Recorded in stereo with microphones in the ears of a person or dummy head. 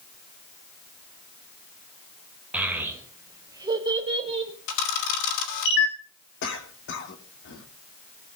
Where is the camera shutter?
70° left (ahead or behind), 4.5 m.